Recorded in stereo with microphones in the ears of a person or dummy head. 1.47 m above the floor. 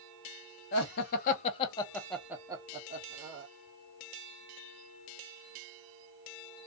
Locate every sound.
0.7 s laughter: 60° left (ahead or behind), 0.9 m; by 3.5 s 50° right (ahead or behind), 0.9 m